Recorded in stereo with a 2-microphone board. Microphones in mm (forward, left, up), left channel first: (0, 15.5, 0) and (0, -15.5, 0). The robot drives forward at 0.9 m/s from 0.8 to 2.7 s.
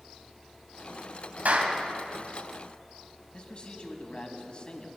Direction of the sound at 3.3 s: 35° left (ahead or behind).